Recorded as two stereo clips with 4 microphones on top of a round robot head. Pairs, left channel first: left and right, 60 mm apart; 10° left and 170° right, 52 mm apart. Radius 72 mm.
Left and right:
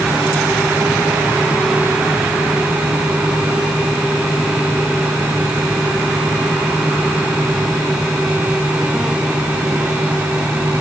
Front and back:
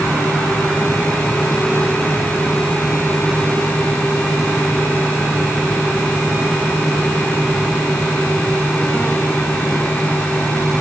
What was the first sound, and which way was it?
Only background noise.